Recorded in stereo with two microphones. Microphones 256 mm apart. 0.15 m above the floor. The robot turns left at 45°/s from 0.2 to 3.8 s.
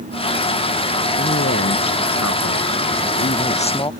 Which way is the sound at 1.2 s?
135° left.